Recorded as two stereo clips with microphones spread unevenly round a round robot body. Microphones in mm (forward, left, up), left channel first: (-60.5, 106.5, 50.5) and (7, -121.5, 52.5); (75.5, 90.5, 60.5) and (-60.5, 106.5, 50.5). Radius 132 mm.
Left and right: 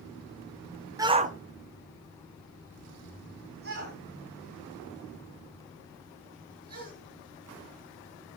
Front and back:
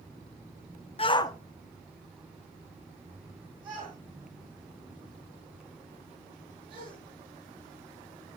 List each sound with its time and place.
1.0 s a shout: 5° right, 0.8 m; by 6.9 s 125° right, 7 m